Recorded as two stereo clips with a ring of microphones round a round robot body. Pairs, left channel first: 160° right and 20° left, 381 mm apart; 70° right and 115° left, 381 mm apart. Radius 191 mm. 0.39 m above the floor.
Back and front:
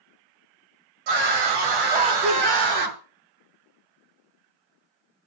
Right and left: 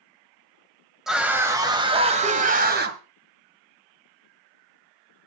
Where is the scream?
25° left, 2 m; by 3.0 s 50° left, 2.5 m.